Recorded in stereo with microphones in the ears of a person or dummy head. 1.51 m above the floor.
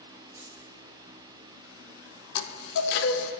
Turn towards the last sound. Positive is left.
turn(degrees=65)  # may be behind; listen again after turning